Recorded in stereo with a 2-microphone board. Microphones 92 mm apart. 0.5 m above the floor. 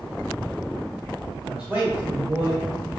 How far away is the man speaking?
About 1.6 m.